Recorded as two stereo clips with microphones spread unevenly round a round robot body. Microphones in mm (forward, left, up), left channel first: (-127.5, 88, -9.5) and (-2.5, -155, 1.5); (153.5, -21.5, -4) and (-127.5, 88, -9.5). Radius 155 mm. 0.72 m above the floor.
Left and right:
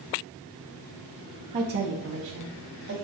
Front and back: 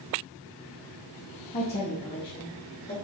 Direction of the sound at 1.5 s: 60° right.